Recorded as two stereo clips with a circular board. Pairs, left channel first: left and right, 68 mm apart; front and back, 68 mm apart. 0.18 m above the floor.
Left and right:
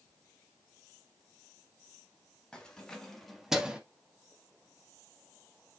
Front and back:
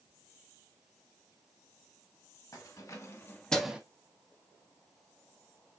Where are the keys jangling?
15° left, 1.7 m; by 3.8 s 135° right, 0.8 m.